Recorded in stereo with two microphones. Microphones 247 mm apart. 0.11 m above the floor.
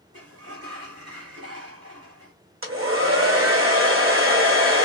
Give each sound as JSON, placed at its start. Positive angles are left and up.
{"t": 0.1, "sound": "a sliding door", "side_deg": -85, "distance_m": 1.4}
{"t": 2.6, "sound": "a hair dryer", "side_deg": -60, "distance_m": 1.7}